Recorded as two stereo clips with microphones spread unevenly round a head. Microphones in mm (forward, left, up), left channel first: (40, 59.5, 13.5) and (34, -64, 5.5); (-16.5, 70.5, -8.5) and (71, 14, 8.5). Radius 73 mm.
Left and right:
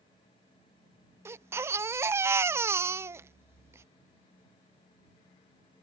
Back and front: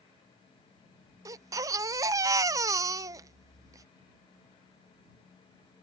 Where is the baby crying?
30° right.